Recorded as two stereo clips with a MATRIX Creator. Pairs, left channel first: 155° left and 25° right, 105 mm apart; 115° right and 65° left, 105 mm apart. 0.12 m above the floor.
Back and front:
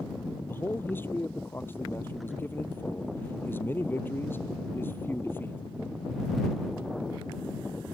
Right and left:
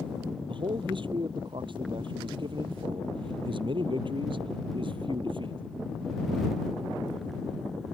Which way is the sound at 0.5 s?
90° left.